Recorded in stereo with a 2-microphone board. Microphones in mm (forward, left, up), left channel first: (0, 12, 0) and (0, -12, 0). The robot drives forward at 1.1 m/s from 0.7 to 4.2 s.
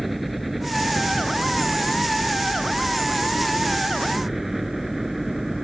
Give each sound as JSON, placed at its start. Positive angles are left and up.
{"t": 0.0, "sound": "a helicopter", "side_deg": -5}